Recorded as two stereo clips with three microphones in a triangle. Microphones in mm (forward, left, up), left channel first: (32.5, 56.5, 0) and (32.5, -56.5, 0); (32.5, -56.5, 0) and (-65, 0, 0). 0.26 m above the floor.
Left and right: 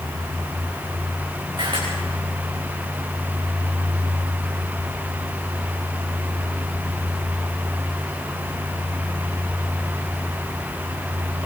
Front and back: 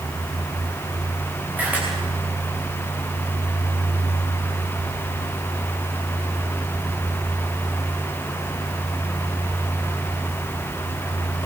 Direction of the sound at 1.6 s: 135° right.